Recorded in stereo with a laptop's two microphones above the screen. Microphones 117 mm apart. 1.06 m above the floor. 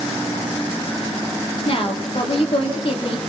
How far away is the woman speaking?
About 3 m.